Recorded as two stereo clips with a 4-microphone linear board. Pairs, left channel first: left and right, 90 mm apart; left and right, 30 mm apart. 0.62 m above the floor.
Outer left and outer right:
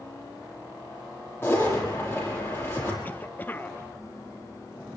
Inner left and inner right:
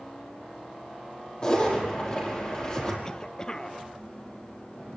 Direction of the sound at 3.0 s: 20° left (ahead or behind).